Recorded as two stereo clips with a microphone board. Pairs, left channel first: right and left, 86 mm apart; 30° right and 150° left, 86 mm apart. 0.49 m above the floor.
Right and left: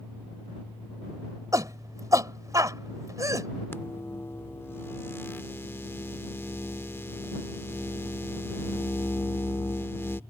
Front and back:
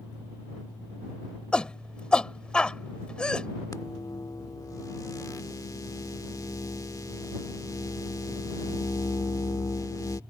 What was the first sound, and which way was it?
A shout, 45° left.